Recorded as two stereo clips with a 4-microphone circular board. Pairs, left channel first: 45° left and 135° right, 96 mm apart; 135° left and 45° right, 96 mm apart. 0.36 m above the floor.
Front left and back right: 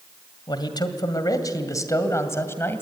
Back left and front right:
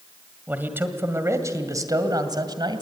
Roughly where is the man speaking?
Ahead left.